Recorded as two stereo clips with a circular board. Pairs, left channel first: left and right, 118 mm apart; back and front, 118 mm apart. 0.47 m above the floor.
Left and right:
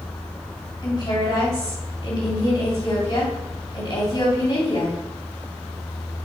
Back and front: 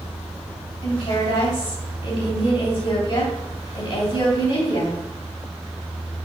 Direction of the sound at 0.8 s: 145° left.